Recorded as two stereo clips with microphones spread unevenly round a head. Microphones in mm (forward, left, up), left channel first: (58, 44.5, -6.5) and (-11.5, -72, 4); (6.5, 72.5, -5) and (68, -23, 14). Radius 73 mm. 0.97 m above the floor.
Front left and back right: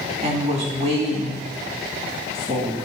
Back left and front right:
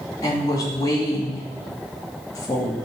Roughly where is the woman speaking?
Behind.